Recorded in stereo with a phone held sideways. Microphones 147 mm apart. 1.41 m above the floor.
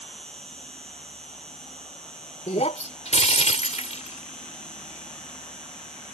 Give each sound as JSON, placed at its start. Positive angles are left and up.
{"t": 0.0, "sound": "an insect", "side_deg": 5}
{"t": 2.5, "sound": "breaking glass", "side_deg": 50}